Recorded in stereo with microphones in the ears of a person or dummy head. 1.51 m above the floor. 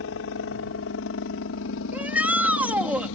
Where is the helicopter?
60° left (ahead or behind).